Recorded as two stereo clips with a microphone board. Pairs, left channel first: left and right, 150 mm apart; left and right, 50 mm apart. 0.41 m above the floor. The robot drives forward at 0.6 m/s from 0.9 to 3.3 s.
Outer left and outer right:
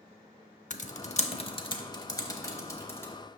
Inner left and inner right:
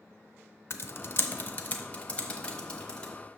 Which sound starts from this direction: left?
Typing on a keyboard, at 0.7 s.